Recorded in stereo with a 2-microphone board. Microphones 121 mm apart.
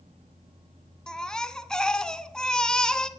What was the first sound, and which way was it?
A baby crying, 5° left (ahead or behind).